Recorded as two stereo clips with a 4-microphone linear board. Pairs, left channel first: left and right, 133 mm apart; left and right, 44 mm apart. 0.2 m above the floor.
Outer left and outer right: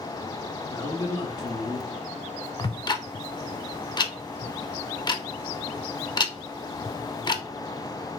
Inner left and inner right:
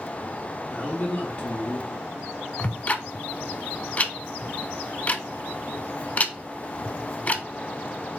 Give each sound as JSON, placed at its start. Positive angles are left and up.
{"t": 0.7, "sound": "a man speaking", "side_deg": 30, "distance_m": 2.0}
{"t": 2.6, "sound": "ticking", "side_deg": 35, "distance_m": 0.5}